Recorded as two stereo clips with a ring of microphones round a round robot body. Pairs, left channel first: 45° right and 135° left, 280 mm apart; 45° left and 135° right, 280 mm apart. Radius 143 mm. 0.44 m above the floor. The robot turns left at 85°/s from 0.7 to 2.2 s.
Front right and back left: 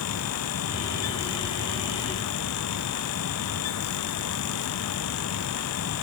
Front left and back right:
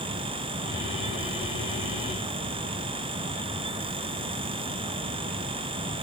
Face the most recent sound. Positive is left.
No sound to turn to.